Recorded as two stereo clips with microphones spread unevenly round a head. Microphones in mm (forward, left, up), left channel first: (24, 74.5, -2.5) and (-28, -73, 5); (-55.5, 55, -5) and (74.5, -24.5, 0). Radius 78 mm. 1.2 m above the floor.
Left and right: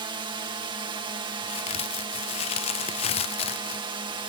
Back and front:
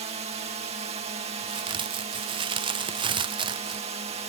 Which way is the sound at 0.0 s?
60° right.